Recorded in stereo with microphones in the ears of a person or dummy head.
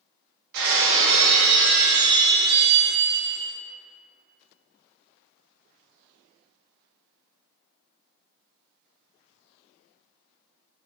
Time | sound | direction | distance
0.5 | breaking glass | 60° right (ahead or behind) | 1.5 m